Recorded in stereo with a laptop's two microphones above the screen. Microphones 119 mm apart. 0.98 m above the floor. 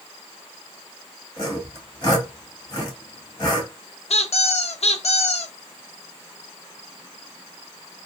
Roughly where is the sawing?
Left.